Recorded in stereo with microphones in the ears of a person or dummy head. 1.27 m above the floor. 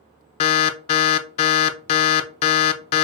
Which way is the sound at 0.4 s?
35° left (ahead or behind).